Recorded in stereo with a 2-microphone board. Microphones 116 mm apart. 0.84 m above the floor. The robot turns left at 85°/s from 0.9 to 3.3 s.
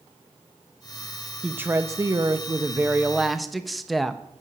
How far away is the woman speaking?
About 0.9 m.